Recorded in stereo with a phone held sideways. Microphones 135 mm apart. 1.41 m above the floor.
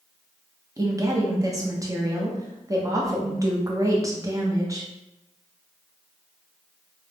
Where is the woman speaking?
25° right (ahead or behind), 0.6 m.